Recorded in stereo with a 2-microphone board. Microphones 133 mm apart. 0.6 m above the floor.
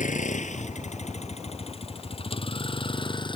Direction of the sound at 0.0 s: 70° left (ahead or behind).